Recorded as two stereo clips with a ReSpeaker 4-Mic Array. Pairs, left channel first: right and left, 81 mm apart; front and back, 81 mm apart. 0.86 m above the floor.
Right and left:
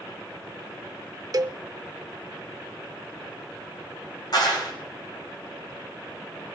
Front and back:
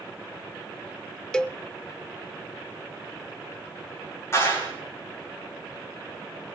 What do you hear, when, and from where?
1.3 s a cowbell: 80° left, 0.6 m
4.3 s a clap: 55° right, 6 m